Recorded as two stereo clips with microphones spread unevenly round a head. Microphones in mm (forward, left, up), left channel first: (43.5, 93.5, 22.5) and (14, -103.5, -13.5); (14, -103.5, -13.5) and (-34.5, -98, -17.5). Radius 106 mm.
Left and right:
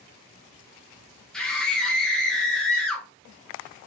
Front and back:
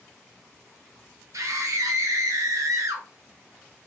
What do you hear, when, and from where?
1.3 s a scream: 170° left, 1.0 m